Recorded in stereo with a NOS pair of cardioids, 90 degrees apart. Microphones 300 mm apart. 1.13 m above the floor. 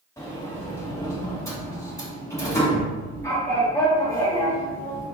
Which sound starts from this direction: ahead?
A sliding door, at 0.2 s.